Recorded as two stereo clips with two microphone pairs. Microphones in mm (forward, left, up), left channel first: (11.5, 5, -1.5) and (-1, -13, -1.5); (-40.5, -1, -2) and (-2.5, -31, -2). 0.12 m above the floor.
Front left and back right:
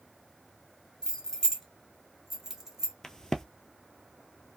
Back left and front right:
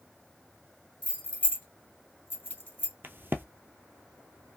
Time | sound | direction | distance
1.0 | keys jangling | 90° left | 1.1 m
3.0 | a crack | straight ahead | 0.6 m